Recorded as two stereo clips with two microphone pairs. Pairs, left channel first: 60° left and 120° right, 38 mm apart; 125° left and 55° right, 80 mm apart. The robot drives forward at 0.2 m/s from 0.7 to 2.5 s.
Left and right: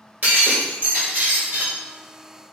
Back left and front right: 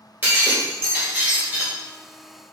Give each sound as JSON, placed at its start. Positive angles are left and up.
{"t": 0.2, "sound": "breaking glass", "azimuth_deg": -115, "distance_m": 1.5}